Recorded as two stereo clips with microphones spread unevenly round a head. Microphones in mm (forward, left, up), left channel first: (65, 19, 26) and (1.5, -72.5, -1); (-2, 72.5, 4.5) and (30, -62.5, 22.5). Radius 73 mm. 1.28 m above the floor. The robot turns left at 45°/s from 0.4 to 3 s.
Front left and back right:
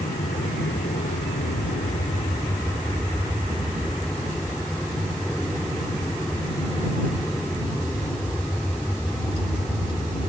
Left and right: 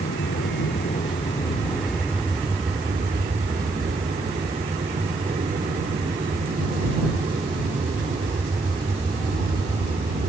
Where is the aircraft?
90° left; by 10.3 s 25° right.